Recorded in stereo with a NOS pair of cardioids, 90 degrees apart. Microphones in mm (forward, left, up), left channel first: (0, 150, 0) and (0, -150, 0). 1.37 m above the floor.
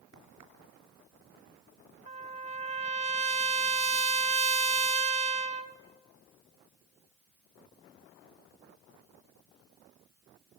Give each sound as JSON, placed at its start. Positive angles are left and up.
{"t": 0.1, "sound": "a crack", "azimuth_deg": -70, "distance_m": 4.0}
{"t": 2.1, "sound": "a trumpet", "azimuth_deg": -20, "distance_m": 0.5}